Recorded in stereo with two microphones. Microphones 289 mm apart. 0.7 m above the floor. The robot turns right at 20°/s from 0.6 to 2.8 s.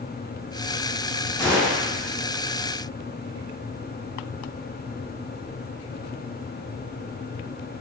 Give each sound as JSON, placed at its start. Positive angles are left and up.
{"t": 1.4, "sound": "a gunshot", "side_deg": 0, "distance_m": 1.7}